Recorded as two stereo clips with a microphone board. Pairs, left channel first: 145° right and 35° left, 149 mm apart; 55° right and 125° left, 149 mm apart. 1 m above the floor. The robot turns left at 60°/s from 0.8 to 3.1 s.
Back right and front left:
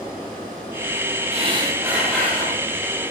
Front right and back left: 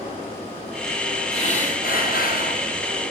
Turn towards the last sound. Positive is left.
turn(degrees=-115)